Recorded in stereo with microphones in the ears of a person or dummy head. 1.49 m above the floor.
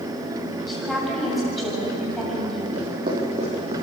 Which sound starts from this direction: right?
Footsteps, at 2.8 s.